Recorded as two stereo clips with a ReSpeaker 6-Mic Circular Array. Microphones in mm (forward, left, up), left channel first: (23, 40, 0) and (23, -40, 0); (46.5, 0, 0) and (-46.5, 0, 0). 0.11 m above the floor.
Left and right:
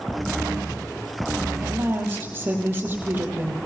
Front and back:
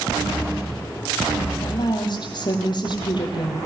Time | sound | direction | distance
1.6 | a woman speaking | 30° right | 4 m